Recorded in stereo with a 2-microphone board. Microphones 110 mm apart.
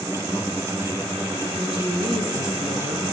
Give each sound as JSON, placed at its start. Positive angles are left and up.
{"t": 1.6, "sound": "a woman speaking", "side_deg": -60, "distance_m": 3.5}